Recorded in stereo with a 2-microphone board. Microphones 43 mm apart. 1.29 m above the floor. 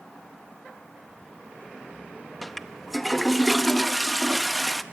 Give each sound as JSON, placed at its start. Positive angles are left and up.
{"t": 2.4, "sound": "a toilet flushing", "side_deg": 5, "distance_m": 0.7}